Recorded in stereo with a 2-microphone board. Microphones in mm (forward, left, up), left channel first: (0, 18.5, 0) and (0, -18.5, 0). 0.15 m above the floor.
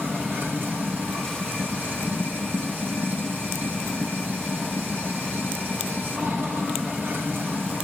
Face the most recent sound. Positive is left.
turn(degrees=-65)  # may be behind; listen again after turning